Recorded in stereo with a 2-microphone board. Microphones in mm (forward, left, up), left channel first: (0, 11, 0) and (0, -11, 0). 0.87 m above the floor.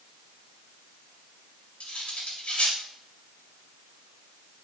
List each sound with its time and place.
1.8 s cutlery clinking: 85° left, 3 m